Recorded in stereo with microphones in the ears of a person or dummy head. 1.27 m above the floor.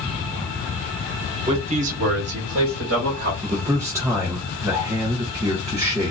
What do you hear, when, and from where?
1.5 s a man speaking: 25° right (ahead or behind), 0.9 m; by 3.3 s 55° right (ahead or behind), 1.2 m
3.4 s a man speaking: 10° right (ahead or behind), 0.6 m